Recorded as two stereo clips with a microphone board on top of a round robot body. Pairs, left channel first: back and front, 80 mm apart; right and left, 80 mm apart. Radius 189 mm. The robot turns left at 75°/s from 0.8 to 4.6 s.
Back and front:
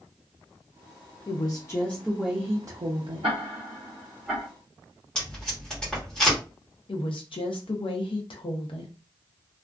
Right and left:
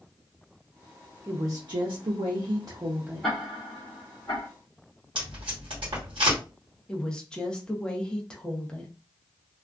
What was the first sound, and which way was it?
A woman speaking, 155° left.